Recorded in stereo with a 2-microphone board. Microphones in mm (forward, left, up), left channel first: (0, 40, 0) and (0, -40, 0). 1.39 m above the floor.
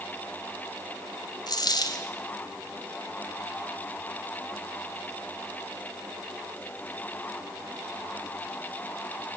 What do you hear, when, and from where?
1.5 s a dropped coin: 60° left (ahead or behind), 2.5 m